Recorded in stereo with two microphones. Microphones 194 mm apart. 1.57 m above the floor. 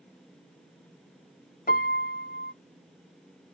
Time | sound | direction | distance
1.7 | a piano | 45° left (ahead or behind) | 0.6 m